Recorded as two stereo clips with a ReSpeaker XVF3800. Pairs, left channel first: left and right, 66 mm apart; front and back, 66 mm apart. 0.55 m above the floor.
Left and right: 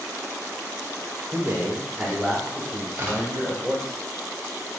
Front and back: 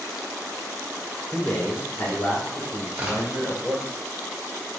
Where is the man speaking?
70° right, 1.4 m; by 3.9 s 45° left, 3 m.